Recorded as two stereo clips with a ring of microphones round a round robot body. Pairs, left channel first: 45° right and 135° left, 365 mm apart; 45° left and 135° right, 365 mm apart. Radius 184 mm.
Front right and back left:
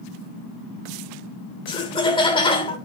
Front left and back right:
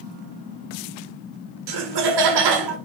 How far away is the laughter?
About 1.7 m.